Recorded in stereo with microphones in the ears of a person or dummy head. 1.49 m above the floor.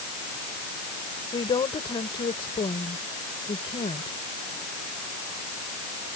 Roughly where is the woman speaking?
Left.